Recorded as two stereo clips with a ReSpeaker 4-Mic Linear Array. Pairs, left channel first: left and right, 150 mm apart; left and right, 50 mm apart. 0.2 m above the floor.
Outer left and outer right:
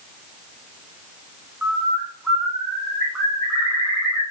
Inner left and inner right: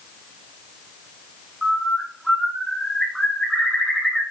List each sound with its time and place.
1.6 s a bird: 5° right (ahead or behind), 8 m